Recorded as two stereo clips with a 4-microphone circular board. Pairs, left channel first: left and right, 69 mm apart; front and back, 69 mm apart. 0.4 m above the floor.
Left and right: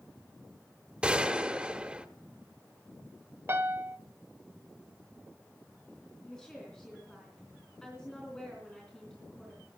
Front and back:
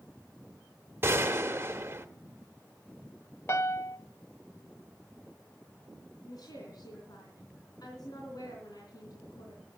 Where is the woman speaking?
10° left, 3.5 m.